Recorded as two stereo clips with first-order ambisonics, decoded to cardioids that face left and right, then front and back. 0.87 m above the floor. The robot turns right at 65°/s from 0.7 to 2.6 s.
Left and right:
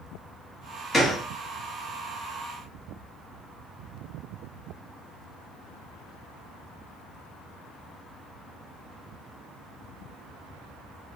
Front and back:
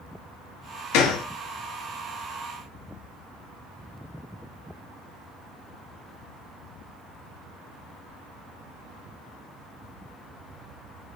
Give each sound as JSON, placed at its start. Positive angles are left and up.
{"t": 0.9, "sound": "a gunshot", "azimuth_deg": 15, "distance_m": 0.9}